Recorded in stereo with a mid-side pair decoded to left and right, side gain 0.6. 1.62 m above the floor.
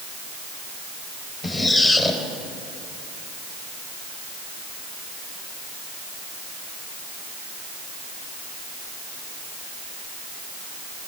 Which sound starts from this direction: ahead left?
A squeak, at 1.4 s.